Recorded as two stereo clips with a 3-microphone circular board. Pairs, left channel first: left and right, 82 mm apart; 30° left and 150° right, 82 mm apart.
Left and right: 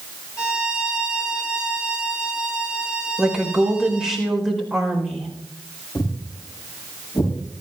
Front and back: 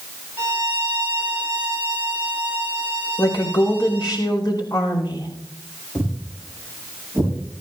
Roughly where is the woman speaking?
Ahead.